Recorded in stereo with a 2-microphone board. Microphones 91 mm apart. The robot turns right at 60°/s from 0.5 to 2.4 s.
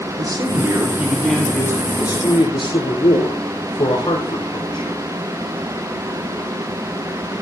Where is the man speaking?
50° right, 7 m; by 5.0 s 65° left, 7 m.